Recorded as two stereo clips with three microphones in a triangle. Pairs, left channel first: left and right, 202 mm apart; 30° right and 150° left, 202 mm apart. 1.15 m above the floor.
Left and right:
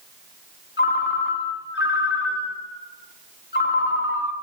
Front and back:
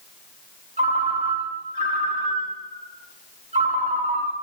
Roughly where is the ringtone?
Left.